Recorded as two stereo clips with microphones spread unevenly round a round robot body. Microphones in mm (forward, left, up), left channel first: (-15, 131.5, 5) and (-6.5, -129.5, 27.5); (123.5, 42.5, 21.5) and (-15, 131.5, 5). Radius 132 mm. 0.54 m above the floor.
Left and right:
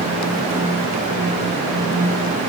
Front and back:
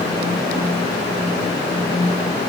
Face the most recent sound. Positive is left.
No sound to turn to.